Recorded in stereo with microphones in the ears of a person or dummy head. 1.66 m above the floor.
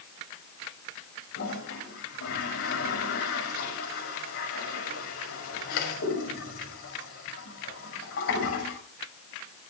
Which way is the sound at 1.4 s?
60° left (ahead or behind).